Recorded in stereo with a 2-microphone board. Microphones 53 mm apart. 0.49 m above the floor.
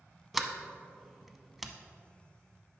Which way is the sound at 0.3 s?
5° right (ahead or behind).